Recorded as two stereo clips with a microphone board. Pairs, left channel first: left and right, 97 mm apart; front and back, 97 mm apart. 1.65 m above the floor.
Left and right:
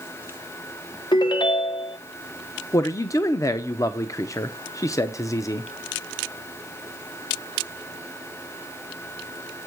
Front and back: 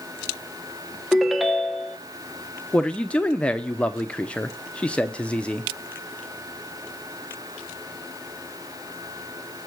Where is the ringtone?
90° left, 0.9 m.